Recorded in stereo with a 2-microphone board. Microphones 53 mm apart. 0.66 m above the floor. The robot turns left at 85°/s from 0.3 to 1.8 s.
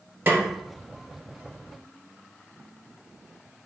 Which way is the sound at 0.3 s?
45° right (ahead or behind).